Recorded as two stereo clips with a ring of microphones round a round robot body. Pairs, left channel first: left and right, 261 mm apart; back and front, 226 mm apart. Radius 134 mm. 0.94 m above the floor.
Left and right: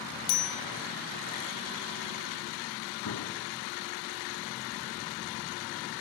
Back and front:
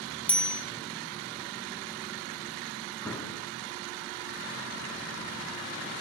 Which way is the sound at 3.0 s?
95° left.